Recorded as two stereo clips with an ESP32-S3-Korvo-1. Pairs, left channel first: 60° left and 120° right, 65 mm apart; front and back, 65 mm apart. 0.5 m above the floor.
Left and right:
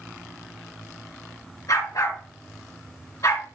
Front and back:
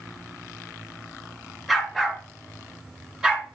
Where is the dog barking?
95° left, 3.5 m; by 3.5 s 105° left, 2.5 m.